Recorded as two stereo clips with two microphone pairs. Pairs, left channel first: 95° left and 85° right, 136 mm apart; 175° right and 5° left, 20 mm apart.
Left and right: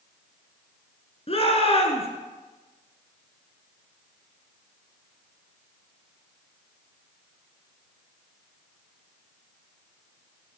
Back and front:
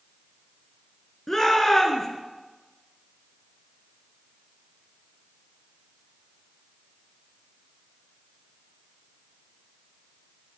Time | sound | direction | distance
1.3 | a shout | 120° left | 1.7 m